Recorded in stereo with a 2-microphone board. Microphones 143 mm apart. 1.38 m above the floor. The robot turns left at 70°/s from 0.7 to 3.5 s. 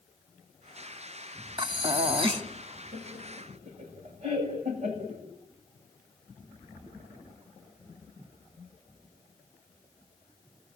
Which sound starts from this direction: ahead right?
Breathing, at 1.6 s.